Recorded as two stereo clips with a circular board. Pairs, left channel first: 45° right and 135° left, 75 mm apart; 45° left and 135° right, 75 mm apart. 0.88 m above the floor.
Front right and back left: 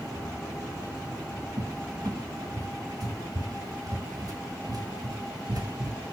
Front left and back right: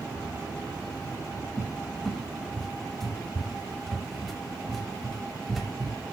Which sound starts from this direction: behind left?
A cupboard door, at 1.6 s.